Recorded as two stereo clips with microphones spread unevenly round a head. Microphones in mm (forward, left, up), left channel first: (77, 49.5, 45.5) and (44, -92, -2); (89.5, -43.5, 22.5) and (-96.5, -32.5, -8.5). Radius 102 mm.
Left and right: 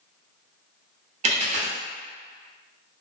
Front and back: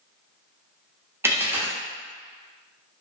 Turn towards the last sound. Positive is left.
turn(degrees=-100)